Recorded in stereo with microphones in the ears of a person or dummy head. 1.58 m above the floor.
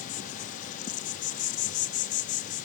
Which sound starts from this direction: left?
An insect, at 0.0 s.